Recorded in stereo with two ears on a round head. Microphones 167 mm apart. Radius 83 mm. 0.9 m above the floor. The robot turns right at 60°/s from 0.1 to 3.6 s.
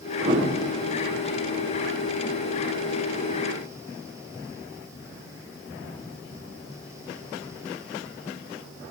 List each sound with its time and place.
0.2 s a whoosh: 35° right (ahead or behind), 9 m; by 0.5 s 20° right (ahead or behind), 9 m